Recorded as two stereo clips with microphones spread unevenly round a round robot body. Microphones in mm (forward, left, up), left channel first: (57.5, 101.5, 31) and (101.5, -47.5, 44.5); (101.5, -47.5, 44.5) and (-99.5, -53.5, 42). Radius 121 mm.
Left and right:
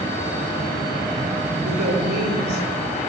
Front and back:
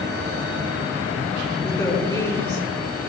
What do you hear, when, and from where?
1.6 s a woman speaking: 65° right, 6 m